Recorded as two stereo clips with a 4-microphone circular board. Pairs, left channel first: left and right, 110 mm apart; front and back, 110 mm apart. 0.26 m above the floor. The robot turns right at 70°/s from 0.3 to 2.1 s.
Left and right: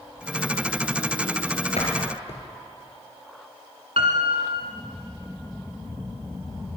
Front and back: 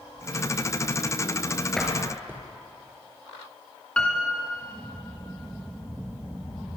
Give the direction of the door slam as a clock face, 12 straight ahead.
9 o'clock.